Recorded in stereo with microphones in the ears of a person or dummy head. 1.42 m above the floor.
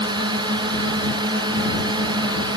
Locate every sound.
0.0 s a drone: 25° right (ahead or behind)